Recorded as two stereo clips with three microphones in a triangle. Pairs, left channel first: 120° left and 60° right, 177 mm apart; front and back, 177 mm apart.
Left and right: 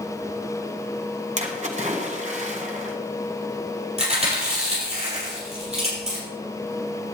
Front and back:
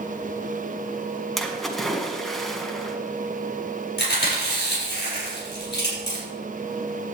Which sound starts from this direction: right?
A splash, at 1.4 s.